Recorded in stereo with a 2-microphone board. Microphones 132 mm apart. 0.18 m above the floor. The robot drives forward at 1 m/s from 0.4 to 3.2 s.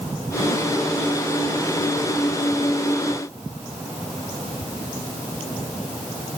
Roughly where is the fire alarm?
No fire alarm in this recording.